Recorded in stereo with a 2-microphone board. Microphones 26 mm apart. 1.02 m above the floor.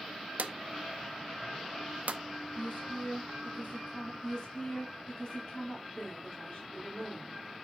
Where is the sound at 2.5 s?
75° left (ahead or behind), 2.5 m.